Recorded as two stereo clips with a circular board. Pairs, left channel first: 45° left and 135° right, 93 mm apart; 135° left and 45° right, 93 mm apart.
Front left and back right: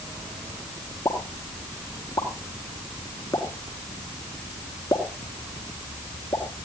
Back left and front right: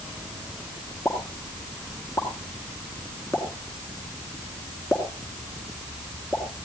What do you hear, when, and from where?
1.1 s a pop: 90° left, 3.5 m